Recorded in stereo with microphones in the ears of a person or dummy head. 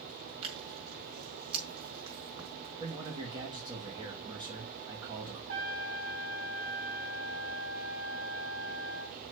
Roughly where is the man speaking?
Right.